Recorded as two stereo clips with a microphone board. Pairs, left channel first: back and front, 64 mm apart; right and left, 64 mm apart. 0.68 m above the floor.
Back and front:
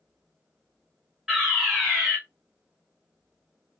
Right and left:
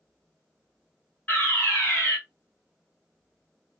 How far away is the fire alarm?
About 2.0 m.